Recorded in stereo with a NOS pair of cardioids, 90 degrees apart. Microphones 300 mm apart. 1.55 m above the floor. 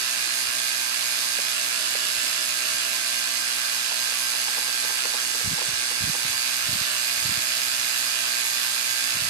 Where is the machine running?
60° right, 2.5 m.